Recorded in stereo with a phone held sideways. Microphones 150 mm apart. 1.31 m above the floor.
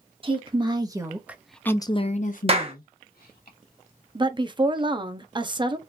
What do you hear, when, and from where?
0.2 s a woman speaking: 35° right (ahead or behind), 1.4 m; by 3.5 s 80° left, 1.4 m
2.5 s a clap: 40° right (ahead or behind), 1.0 m
4.2 s a woman speaking: 30° right (ahead or behind), 0.6 m